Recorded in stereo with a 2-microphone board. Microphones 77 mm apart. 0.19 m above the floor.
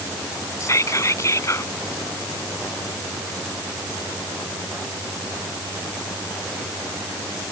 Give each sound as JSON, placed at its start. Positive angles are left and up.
{"t": 0.6, "sound": "whispering", "side_deg": 45}